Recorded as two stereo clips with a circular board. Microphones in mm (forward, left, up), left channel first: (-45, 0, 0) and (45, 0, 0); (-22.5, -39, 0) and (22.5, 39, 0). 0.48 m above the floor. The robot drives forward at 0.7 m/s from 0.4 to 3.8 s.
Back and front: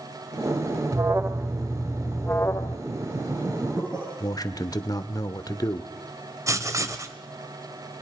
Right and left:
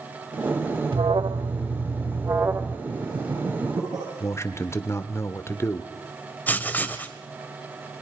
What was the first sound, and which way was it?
An alarm, 50° left.